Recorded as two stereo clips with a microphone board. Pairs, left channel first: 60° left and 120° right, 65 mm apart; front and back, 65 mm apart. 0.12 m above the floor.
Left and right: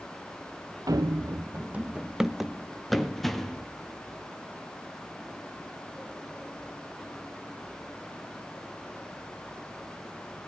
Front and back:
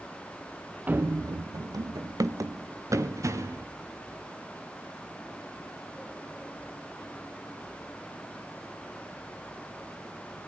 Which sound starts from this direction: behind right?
Running footsteps, at 0.9 s.